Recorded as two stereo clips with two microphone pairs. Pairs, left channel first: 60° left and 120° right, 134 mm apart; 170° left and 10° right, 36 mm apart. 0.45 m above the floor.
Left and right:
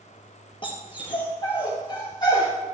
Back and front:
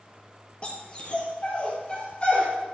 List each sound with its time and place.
0.6 s a dog barking: 110° left, 3.5 m; by 2.5 s 115° left, 5 m